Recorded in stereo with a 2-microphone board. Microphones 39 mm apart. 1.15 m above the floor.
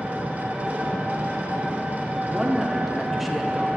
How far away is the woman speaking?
About 0.7 m.